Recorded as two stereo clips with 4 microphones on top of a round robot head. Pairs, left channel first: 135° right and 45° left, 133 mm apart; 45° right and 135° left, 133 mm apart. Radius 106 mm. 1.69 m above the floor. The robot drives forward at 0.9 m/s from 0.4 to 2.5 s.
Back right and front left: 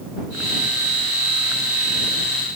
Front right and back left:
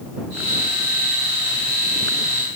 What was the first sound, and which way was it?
Only background noise.